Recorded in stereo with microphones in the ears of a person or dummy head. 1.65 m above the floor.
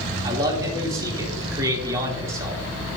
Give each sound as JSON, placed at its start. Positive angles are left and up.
{"t": 0.2, "sound": "a man speaking", "side_deg": -20, "distance_m": 2.5}